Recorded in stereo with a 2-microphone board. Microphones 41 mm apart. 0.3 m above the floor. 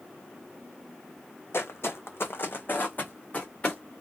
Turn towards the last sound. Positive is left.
turn(degrees=25)  # may be behind; listen again after turning